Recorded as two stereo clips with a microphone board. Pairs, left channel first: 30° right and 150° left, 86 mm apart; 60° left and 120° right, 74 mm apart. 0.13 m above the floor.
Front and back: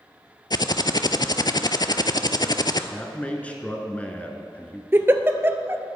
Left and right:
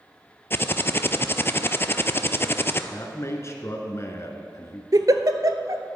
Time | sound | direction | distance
0.5 | typing on a keyboard | 5° left | 0.5 m
2.9 | a man speaking | 40° left | 1.3 m
4.9 | a giggle | 150° right | 0.7 m